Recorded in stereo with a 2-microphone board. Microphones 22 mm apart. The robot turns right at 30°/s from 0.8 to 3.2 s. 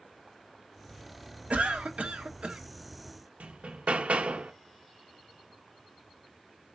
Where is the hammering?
80° right, 0.7 m.